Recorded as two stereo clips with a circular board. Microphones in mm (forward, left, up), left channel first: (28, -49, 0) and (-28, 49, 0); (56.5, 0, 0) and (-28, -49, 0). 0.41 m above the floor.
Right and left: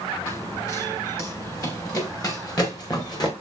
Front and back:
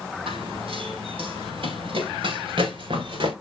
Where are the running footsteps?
120° right, 8 m; by 3.3 s 115° right, 6.5 m.